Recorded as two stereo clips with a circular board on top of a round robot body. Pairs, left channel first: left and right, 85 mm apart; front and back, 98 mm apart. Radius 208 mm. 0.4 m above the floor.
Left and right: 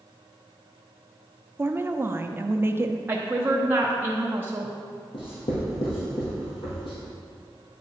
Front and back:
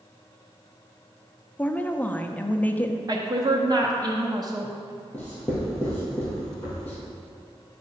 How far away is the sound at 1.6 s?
About 0.8 m.